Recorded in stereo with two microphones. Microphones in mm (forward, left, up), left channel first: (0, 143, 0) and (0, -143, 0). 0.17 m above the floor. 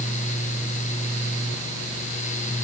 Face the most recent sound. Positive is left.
No sound to turn to.